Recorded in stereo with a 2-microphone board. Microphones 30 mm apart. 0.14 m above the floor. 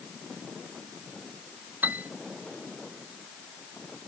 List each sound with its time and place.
1.8 s a piano: 65° right (ahead or behind)